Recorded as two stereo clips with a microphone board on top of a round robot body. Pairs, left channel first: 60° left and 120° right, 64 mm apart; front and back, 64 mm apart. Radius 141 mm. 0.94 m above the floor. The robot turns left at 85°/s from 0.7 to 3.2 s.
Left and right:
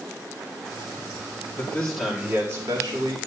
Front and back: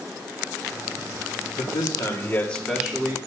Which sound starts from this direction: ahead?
A man speaking, at 1.6 s.